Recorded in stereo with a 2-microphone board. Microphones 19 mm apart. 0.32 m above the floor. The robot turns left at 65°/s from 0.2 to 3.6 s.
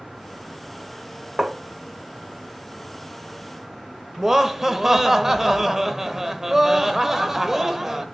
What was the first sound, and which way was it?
Tapping, 35° right (ahead or behind).